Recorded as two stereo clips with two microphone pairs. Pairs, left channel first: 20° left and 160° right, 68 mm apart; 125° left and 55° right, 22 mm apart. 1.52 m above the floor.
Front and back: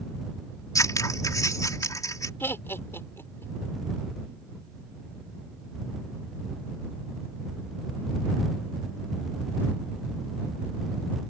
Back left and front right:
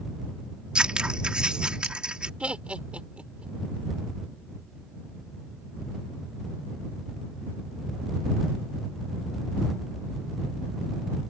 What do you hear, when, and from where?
0.8 s scissors: 15° right
2.4 s laughter: 35° right